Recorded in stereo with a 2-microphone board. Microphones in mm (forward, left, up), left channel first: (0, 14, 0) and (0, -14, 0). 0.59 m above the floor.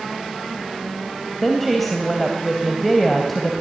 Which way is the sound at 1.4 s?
Centre (ahead or behind).